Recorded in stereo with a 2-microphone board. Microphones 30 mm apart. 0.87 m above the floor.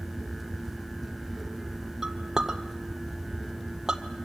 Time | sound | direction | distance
2.0 | a clink | 15° right (ahead or behind) | 1.8 m